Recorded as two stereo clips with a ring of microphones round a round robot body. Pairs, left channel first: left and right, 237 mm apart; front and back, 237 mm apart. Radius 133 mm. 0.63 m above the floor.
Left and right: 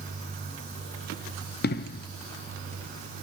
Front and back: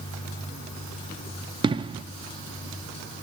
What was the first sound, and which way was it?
An explosion, 115° left.